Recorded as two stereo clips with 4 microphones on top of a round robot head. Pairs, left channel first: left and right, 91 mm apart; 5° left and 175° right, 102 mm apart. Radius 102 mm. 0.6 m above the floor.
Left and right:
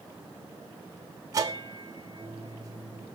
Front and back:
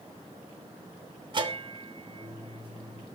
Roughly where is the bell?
Behind right.